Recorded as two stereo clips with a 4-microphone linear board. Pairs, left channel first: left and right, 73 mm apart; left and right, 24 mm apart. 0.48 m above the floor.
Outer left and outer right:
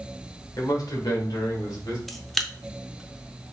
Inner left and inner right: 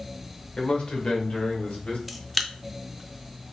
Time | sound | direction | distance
0.6 | a man speaking | 50° left (ahead or behind) | 1.3 m
2.1 | a camera shutter | centre (ahead or behind) | 0.5 m